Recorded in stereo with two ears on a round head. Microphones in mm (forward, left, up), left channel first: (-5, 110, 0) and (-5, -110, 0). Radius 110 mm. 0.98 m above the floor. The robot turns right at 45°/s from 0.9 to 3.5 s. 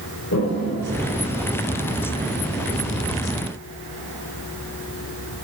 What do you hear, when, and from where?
0.3 s a toilet flushing: 55° left (ahead or behind), 3 m; by 2.1 s 5° left (ahead or behind), 3 m